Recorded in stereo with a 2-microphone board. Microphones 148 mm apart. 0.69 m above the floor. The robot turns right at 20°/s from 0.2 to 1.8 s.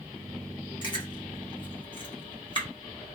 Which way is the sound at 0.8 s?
30° left (ahead or behind).